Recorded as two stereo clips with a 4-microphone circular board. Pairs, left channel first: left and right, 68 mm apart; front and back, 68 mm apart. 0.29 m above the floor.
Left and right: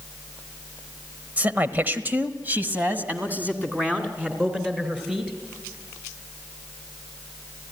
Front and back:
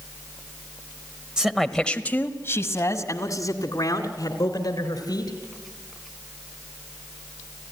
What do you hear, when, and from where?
1.4 s a man speaking: 115° right, 1.0 m; by 5.3 s 20° right, 3.5 m